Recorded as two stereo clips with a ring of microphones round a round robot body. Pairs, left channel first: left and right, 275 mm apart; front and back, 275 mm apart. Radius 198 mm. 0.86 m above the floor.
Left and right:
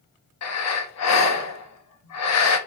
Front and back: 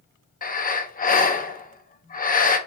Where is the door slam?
I don't hear a door slam.